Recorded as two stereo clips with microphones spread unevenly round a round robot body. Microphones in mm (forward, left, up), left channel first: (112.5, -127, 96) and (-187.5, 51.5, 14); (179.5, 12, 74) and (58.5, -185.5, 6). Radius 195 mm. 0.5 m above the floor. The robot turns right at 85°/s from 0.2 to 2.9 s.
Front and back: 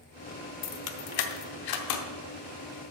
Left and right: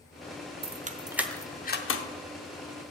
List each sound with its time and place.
0.6 s keys jangling: 95° right, 0.9 m; by 2.0 s 25° left, 0.9 m